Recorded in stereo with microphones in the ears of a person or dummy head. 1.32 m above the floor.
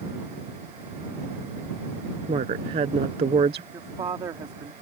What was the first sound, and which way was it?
A woman speaking, 30° right (ahead or behind).